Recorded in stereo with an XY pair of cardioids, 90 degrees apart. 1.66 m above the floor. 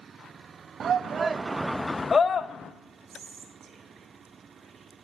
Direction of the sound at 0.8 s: 55° right.